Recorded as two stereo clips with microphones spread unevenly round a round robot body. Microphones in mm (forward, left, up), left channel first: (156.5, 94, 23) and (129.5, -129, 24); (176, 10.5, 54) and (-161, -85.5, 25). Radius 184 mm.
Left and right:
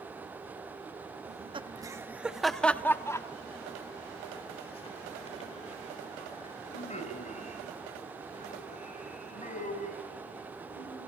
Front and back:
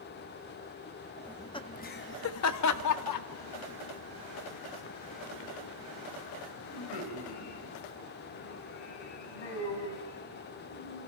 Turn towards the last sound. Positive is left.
turn(degrees=30)